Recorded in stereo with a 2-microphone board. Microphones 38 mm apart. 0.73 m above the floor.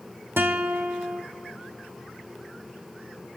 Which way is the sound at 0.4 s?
85° right.